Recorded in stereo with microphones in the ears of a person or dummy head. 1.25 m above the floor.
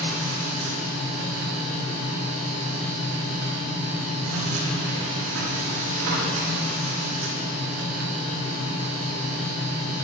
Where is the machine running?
75° right (ahead or behind), 2.5 m.